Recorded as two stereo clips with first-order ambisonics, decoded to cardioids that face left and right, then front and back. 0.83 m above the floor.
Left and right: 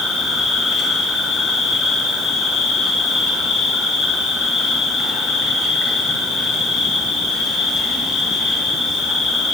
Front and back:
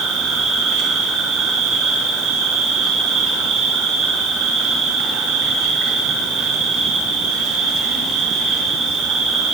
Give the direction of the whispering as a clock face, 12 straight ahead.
I don't hear whispering.